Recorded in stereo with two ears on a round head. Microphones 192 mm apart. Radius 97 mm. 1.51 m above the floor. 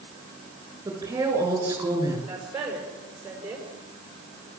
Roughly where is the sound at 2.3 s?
Centre.